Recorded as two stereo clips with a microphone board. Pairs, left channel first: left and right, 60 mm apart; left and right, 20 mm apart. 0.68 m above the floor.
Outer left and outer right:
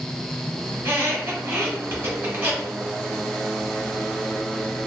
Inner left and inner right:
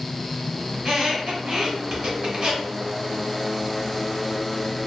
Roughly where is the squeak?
Right.